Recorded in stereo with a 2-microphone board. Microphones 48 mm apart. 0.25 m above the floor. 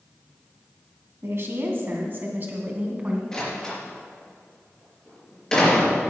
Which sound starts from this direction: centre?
A door slam, at 3.3 s.